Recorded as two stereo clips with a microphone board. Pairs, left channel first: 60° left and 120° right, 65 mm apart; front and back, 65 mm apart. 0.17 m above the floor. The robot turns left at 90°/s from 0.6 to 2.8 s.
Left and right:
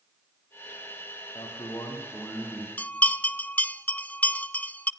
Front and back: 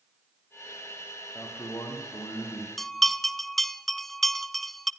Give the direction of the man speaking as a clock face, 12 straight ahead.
10 o'clock.